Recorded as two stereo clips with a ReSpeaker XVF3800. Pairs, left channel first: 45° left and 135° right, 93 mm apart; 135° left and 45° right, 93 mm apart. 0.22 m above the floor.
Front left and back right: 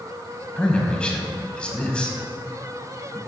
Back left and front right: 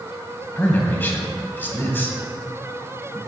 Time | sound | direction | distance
0.6 | a man speaking | 105° left | 1.4 m